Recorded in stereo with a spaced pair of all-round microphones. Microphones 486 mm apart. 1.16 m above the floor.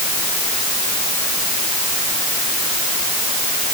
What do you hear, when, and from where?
Only background noise.